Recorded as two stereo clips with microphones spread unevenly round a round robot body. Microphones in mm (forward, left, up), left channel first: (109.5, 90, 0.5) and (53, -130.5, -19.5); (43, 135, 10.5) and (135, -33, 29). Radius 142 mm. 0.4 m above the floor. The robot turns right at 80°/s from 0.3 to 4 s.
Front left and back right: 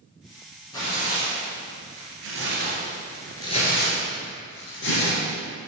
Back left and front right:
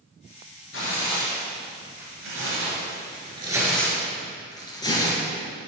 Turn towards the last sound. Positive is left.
turn(degrees=50)